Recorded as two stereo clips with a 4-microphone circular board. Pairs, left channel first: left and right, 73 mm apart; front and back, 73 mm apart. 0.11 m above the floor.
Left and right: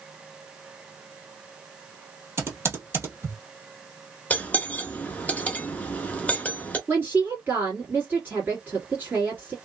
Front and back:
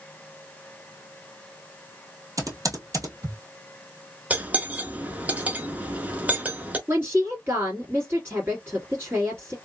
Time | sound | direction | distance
2.4 | typing on a keyboard | 145° right | 1.2 m
4.3 | cutlery clinking | 140° left | 0.7 m
6.9 | a woman speaking | 140° right | 2 m